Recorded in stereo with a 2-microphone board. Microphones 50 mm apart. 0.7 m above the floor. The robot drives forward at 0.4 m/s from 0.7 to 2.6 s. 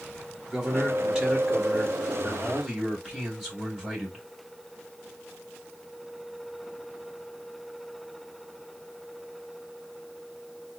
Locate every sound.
0.5 s a man speaking: 10° right (ahead or behind), 1.2 m